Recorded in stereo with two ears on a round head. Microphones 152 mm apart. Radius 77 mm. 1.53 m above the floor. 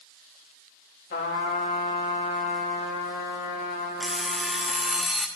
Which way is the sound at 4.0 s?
Centre (ahead or behind).